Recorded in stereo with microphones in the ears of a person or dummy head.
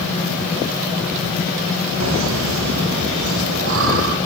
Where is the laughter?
75° right (ahead or behind), 2.5 m; by 4.2 s 65° right (ahead or behind), 4.5 m.